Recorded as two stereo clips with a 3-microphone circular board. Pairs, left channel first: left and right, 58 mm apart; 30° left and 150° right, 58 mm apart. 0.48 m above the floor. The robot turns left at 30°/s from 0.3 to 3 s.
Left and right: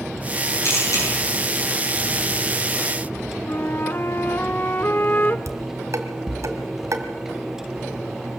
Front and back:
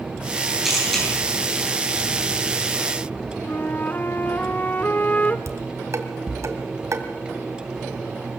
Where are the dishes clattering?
120° right, 2 m.